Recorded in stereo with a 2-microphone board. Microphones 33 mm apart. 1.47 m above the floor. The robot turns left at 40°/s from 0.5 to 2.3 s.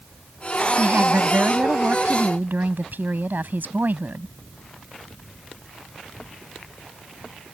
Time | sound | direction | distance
0.8 | a woman speaking | 50° right | ?